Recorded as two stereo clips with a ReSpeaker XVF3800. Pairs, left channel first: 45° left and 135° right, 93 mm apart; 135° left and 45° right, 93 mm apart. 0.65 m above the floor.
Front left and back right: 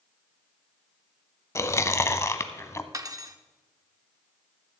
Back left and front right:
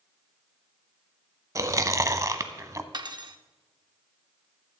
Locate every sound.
1.6 s chewing: 5° right, 0.7 m
2.9 s cutlery clinking: 85° right, 0.7 m